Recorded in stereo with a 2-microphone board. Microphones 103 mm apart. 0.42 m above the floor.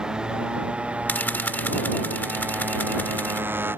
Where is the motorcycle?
5° right (ahead or behind); by 3.8 s 20° right (ahead or behind).